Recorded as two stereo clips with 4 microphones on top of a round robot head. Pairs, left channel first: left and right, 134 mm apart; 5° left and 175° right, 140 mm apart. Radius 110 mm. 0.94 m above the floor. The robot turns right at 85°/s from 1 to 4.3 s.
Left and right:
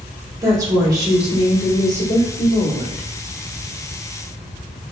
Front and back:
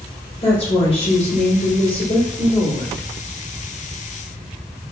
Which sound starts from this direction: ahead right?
A woman speaking, at 0.4 s.